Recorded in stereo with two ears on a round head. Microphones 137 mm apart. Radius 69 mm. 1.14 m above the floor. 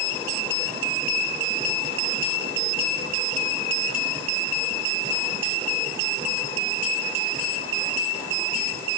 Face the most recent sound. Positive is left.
No sound to turn to.